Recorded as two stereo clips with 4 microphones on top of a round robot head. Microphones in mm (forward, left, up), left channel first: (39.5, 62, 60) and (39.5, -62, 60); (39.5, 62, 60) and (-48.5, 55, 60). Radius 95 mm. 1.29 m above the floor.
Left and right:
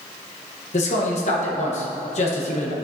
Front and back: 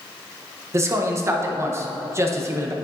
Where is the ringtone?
No ringtone in this recording.